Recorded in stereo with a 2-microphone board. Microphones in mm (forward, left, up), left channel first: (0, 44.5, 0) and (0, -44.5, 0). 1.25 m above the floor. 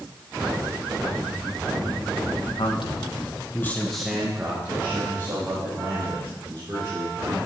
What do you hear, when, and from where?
2.6 s a man speaking: 70° left (ahead or behind), 1.7 m; by 7.5 s 40° right (ahead or behind), 6 m